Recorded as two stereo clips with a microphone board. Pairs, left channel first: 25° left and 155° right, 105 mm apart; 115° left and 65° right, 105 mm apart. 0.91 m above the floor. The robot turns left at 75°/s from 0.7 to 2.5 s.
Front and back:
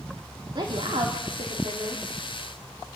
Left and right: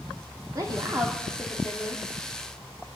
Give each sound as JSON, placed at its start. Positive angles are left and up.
{"t": 0.6, "sound": "a woman speaking", "azimuth_deg": -120, "distance_m": 2.5}